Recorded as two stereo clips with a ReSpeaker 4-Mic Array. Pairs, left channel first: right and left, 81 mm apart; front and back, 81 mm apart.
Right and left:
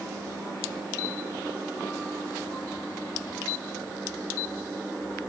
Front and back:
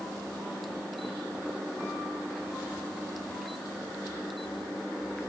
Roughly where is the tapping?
I don't hear tapping.